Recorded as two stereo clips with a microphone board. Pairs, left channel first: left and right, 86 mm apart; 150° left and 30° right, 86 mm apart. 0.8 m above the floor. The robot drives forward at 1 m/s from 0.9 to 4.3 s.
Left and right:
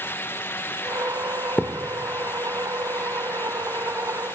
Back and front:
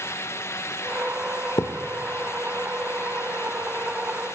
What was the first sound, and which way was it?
A thud, 155° left.